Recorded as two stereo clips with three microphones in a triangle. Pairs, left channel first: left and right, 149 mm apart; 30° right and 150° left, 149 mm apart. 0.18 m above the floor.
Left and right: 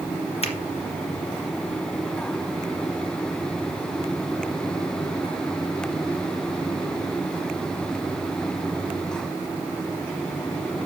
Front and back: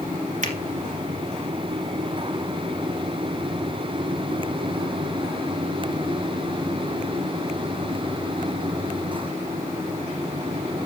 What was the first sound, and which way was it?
A finger snap, 130° left.